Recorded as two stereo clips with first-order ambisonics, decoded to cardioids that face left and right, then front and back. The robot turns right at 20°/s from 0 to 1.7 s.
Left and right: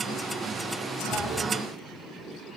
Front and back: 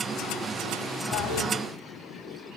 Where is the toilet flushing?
15° right, 1.7 m; by 1.5 s 5° right, 1.7 m.